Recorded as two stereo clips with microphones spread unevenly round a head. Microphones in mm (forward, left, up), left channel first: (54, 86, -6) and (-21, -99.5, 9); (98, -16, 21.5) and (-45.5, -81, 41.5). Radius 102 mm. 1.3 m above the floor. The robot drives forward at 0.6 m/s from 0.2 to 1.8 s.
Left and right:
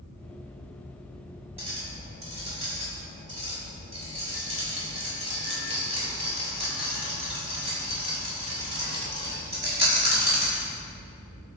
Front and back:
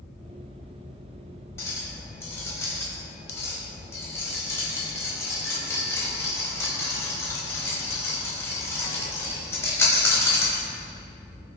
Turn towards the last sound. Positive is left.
turn(degrees=-50)